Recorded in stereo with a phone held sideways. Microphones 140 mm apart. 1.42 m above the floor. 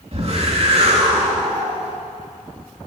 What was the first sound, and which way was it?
A whoosh, 45° right (ahead or behind).